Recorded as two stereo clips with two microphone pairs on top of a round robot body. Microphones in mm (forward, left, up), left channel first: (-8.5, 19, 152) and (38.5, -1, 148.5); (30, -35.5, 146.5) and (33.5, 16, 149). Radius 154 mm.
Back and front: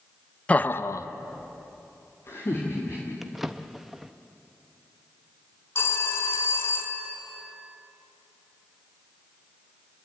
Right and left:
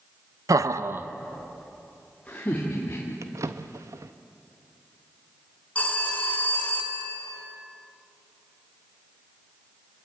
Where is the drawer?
65° left, 0.6 m.